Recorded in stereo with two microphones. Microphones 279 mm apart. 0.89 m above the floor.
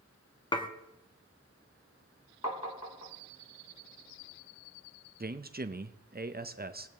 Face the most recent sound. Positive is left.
turn(degrees=-35)  # may be behind; listen again after turning